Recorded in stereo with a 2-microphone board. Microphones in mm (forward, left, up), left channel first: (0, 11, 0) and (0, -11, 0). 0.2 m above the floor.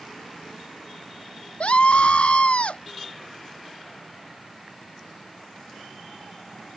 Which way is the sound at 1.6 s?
55° left (ahead or behind).